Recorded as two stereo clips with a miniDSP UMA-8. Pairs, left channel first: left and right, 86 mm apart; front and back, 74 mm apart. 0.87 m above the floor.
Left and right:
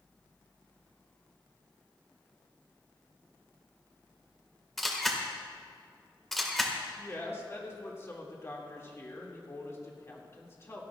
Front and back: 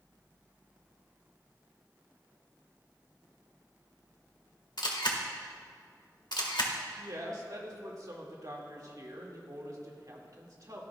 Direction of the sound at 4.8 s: Straight ahead.